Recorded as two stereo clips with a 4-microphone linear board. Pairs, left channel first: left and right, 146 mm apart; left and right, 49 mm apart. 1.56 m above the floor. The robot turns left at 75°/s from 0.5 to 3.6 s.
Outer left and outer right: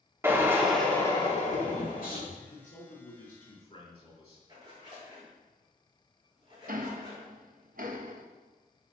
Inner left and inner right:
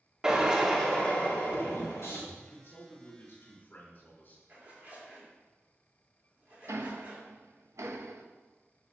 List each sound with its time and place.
0.2 s a drill: 165° right, 2.5 m; by 2.2 s 70° left, 2.5 m
2.4 s a man speaking: 130° left, 4.5 m; by 4.4 s 40° left, 4.5 m
4.5 s a zipper: 35° right (ahead or behind), 4.5 m
6.7 s ticking: 70° right (ahead or behind), 0.9 m